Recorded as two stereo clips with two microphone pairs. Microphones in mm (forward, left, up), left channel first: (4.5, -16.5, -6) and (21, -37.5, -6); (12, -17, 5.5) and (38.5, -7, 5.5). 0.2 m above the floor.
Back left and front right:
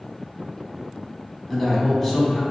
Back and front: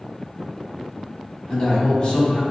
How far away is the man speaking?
About 1.1 m.